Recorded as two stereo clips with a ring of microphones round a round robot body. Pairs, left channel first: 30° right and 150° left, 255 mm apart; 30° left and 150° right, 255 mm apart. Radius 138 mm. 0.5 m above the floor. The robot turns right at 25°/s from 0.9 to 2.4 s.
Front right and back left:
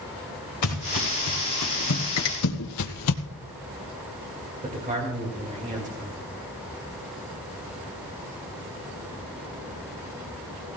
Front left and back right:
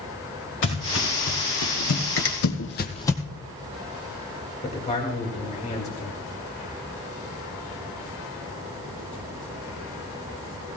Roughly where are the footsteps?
Ahead.